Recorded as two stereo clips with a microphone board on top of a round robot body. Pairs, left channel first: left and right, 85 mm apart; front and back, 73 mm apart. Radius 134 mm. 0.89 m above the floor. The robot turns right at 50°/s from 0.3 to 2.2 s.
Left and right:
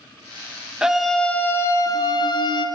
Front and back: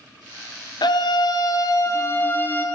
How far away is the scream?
About 0.7 m.